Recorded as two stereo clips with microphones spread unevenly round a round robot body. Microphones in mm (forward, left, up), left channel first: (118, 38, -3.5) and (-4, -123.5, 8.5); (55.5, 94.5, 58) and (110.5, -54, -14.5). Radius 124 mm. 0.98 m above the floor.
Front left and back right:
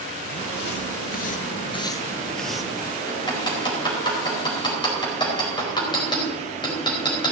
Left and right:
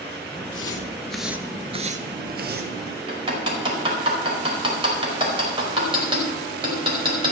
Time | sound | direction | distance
0.4 | footsteps | 90° left | 1.7 m
3.1 | hammering | 15° right | 4.5 m